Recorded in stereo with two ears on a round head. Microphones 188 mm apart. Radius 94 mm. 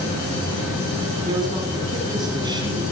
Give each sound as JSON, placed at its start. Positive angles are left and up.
{"t": 1.2, "sound": "a man speaking", "side_deg": -20, "distance_m": 7.5}